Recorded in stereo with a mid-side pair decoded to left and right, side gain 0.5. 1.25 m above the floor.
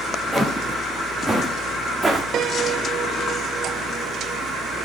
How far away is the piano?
About 1.1 m.